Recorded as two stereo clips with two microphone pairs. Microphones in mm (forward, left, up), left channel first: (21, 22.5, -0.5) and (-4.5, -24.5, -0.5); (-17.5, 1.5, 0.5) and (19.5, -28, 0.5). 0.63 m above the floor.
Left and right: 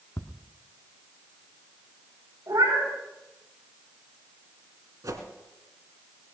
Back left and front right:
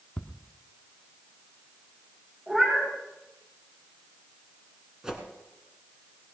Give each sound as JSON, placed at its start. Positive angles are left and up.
{"t": 0.2, "sound": "ticking", "azimuth_deg": 80, "distance_m": 0.9}
{"t": 2.5, "sound": "a cat meowing", "azimuth_deg": -120, "distance_m": 6.0}
{"t": 5.0, "sound": "a whoosh", "azimuth_deg": -115, "distance_m": 1.9}